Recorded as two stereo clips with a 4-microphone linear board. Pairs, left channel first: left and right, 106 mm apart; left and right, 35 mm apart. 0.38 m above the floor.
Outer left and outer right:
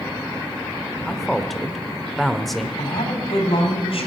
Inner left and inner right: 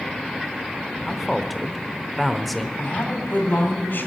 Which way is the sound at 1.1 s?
Centre (ahead or behind).